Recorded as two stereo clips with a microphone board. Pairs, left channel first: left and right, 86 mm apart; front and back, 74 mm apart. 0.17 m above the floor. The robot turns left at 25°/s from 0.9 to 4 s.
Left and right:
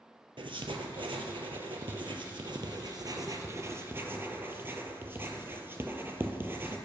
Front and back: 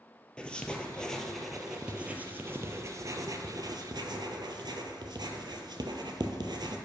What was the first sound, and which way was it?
Writing, 80° right.